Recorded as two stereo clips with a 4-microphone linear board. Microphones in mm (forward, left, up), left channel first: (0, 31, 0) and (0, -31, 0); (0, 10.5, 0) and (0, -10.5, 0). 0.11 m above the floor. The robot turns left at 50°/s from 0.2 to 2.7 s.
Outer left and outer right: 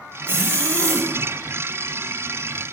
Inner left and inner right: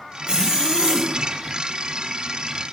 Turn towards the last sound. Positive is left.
turn(degrees=165)